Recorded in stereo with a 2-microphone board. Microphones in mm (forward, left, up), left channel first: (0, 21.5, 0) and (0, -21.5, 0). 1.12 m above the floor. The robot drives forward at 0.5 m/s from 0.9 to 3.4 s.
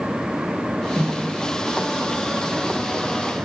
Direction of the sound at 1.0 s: 55° left (ahead or behind).